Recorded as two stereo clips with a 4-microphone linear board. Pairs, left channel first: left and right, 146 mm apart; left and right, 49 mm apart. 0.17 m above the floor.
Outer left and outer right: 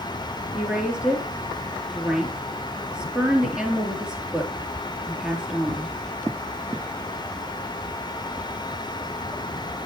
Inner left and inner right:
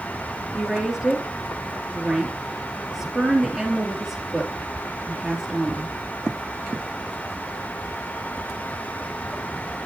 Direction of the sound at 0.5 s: 5° right (ahead or behind).